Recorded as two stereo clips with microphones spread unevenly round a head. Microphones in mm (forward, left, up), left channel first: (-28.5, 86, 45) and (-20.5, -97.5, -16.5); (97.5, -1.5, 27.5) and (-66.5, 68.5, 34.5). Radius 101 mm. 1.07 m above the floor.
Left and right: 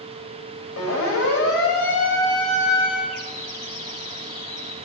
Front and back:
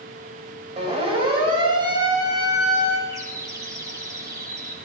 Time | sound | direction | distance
0.8 | a siren | 100° left | 6.5 m
3.1 | a bird | 85° left | 4.5 m